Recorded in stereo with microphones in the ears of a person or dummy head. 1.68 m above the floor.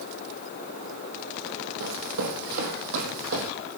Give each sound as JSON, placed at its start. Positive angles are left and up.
{"t": 1.8, "sound": "running footsteps", "side_deg": -70, "distance_m": 4.5}